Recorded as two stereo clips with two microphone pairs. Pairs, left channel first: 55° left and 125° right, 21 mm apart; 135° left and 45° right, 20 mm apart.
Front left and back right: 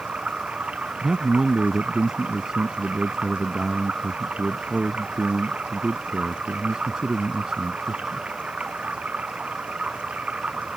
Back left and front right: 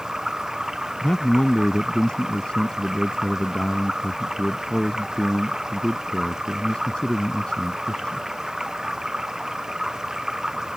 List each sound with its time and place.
0.0 s running water: 110° right
1.0 s a man speaking: 175° left